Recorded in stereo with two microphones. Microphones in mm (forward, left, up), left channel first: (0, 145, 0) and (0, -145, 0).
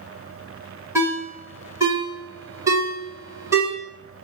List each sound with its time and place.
0.9 s a ringtone: 10° right (ahead or behind), 1.8 m